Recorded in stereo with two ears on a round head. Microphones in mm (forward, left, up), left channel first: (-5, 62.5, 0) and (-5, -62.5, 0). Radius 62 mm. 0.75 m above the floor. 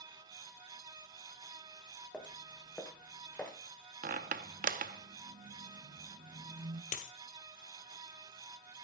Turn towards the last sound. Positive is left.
turn(degrees=60)  # may be behind; listen again after turning